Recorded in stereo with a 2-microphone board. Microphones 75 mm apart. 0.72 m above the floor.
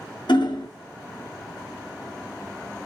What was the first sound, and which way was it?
Hammering, 80° left.